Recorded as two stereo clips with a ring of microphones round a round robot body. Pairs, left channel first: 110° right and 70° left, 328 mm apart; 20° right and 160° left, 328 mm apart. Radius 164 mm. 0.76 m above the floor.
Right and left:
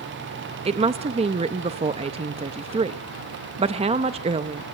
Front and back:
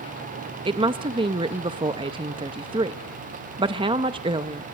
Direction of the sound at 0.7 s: 110° left.